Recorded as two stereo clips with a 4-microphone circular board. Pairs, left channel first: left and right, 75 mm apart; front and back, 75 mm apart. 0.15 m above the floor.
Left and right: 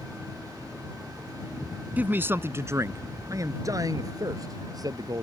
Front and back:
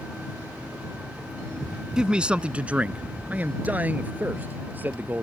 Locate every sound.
2.0 s a man speaking: 115° right